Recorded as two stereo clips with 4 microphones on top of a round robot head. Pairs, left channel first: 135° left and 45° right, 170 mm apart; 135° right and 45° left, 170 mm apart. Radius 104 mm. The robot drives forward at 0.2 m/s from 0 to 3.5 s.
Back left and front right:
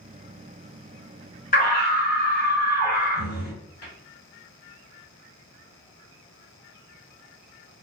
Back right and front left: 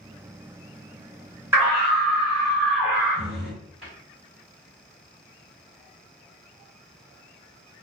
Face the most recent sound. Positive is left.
turn(degrees=130)